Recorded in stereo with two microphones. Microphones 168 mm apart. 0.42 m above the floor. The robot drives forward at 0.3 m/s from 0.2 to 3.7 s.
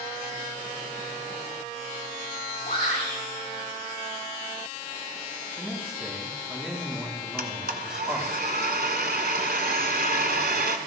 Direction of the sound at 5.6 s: 5° right (ahead or behind).